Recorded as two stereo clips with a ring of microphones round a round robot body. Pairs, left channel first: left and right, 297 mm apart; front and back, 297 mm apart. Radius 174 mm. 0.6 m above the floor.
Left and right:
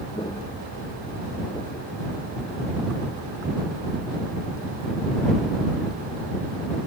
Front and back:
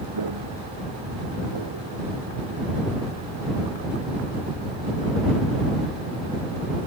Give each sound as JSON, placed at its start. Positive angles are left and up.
{"t": 0.1, "sound": "footsteps", "azimuth_deg": 170}